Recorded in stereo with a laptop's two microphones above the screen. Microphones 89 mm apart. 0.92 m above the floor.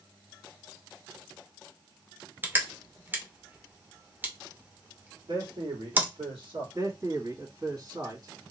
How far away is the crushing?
About 0.6 m.